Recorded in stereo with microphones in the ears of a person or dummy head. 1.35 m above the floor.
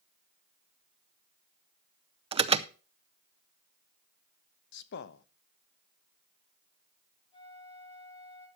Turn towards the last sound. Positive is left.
turn(degrees=25)  # may be behind; listen again after turning